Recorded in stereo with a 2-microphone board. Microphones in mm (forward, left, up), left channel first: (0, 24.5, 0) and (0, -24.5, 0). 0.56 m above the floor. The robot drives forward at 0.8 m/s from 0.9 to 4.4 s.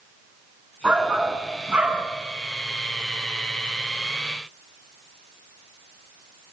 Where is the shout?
25° right (ahead or behind), 7.5 m; by 2.1 s 30° right (ahead or behind), 6.5 m.